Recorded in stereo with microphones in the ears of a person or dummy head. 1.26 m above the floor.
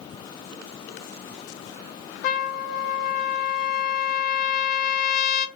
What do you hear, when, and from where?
2.2 s a trumpet: 45° left (ahead or behind), 0.7 m